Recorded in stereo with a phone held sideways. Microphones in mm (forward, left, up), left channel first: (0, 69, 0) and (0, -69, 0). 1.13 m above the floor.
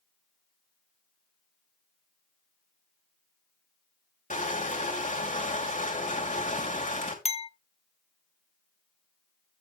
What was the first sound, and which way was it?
Crushing, 65° left (ahead or behind).